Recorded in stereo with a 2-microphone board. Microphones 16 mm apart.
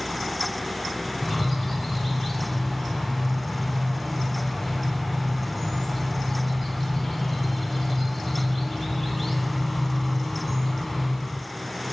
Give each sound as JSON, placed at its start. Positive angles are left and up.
{"t": 1.2, "sound": "a bird", "side_deg": 0, "distance_m": 1.0}